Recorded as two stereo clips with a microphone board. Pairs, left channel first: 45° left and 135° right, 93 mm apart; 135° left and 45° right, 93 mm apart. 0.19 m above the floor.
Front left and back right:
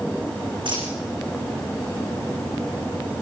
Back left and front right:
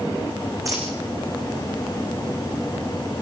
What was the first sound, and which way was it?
A dropped coin, 100° right.